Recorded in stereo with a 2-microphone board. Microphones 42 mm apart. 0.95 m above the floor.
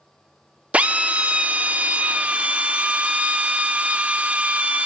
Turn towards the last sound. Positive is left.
turn(degrees=-30)  # may be behind; listen again after turning